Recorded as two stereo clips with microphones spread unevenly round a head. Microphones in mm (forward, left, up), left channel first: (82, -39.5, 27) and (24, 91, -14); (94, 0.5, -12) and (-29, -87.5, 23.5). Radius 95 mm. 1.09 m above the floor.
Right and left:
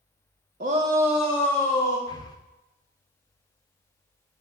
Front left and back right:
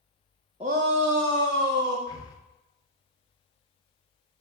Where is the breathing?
Straight ahead, 0.9 m.